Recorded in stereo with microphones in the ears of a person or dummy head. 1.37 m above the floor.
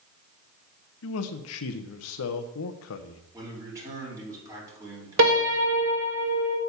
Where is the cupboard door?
I don't hear a cupboard door.